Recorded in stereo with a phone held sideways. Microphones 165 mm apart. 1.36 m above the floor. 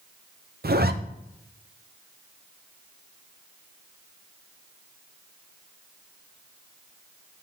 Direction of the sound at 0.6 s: 75° right (ahead or behind).